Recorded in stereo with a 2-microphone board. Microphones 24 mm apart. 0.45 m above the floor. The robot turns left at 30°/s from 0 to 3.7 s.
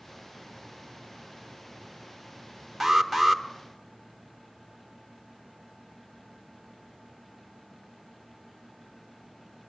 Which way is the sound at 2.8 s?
5° right (ahead or behind).